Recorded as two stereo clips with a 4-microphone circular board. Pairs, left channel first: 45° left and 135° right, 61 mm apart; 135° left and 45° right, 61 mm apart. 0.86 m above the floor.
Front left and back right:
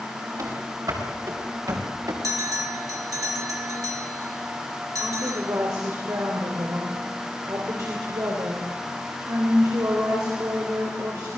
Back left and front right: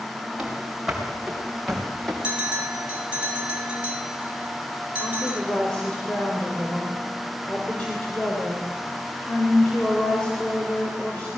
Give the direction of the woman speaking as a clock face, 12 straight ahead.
5 o'clock.